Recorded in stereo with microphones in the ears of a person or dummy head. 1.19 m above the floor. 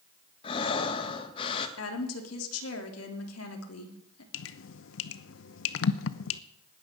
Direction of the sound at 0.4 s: 30° left (ahead or behind).